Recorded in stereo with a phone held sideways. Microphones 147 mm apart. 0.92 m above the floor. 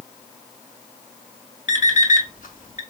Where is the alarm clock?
60° left (ahead or behind), 0.8 m.